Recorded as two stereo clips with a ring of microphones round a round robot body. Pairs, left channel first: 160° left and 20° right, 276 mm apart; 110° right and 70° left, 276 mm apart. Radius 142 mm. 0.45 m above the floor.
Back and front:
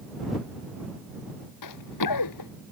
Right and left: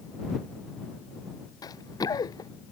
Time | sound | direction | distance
1.6 | running footsteps | 170° left | ?